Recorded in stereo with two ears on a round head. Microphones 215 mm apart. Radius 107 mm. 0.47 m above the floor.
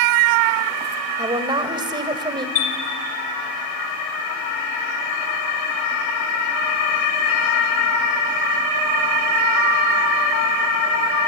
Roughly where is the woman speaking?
Right.